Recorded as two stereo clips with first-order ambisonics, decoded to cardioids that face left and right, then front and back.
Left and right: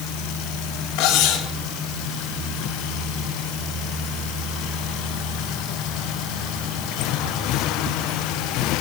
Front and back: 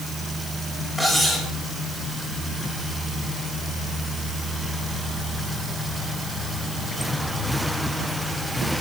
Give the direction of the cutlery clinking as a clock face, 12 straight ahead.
9 o'clock.